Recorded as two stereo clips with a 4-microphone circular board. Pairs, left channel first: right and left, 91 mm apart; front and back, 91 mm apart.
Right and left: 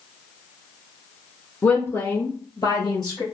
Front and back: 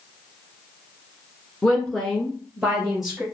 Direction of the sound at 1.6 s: 65° right.